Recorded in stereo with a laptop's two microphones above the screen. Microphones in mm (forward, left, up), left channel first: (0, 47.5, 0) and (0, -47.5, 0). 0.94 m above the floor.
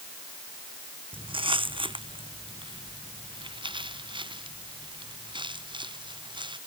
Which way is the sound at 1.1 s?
65° right (ahead or behind).